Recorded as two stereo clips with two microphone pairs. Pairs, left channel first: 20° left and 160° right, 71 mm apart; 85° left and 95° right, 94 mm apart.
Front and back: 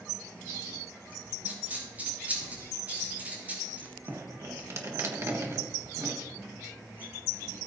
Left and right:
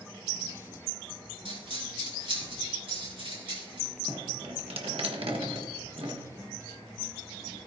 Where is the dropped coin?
90° right, 4.5 m.